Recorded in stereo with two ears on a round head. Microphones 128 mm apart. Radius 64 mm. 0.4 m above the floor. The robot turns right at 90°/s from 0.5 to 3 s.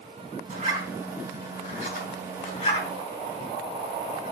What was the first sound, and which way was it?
A zipper, 55° right (ahead or behind).